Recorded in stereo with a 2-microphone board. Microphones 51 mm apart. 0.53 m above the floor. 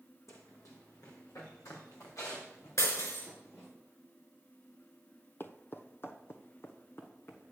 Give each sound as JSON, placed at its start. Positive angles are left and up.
{"t": 0.3, "sound": "running footsteps", "side_deg": 75, "distance_m": 2.5}
{"t": 2.8, "sound": "breaking glass", "side_deg": 70, "distance_m": 4.5}
{"t": 5.4, "sound": "footsteps", "side_deg": 45, "distance_m": 0.7}